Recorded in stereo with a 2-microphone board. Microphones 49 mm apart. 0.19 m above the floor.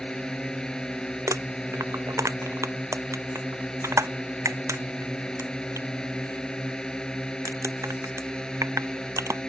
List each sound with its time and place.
0.0 s a drone: 15° left (ahead or behind)
1.3 s crumpling: 85° right